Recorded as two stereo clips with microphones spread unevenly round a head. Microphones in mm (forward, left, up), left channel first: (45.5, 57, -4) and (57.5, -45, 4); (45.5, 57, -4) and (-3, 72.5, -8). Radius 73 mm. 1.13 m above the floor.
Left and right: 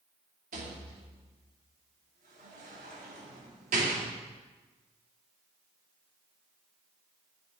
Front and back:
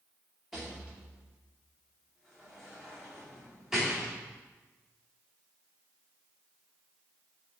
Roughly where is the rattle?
Right.